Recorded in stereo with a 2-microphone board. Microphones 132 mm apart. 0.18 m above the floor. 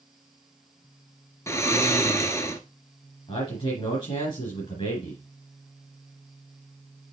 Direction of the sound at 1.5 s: 20° left (ahead or behind).